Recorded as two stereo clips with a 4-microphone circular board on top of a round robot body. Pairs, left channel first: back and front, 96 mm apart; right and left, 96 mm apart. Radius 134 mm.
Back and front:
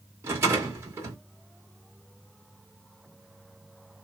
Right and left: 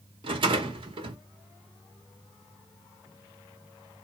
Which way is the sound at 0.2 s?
65° left.